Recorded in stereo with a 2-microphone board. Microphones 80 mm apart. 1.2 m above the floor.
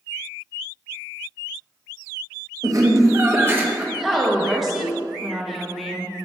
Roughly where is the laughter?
Right.